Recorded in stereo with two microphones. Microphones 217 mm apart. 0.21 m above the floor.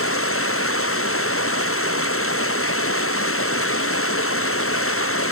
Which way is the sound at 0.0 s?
85° left.